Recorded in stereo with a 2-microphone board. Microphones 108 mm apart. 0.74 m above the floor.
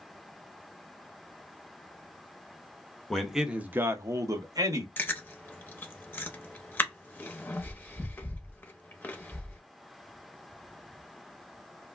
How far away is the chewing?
About 0.7 m.